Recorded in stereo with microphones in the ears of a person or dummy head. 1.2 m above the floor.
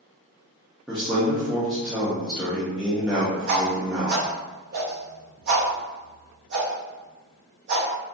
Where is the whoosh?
60° right (ahead or behind), 0.7 m.